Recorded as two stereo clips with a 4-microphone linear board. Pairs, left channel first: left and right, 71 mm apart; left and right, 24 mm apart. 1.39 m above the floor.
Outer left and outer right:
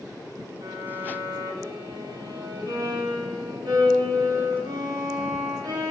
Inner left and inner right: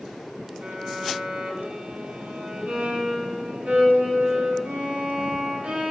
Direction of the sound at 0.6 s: 85° right.